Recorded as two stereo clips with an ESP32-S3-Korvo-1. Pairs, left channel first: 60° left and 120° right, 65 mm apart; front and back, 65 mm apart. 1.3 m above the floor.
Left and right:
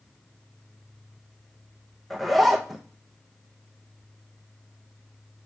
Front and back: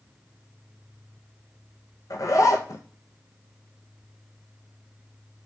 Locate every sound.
2.1 s a zipper: 30° right, 0.7 m